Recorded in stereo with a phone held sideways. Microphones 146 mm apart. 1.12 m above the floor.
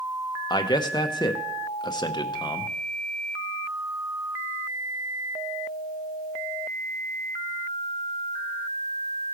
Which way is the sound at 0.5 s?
30° left (ahead or behind).